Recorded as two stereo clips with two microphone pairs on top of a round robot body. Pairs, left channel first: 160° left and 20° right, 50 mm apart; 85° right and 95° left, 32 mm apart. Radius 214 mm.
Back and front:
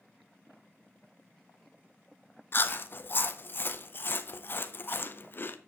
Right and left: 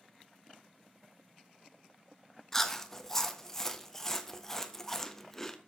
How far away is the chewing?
About 1.4 m.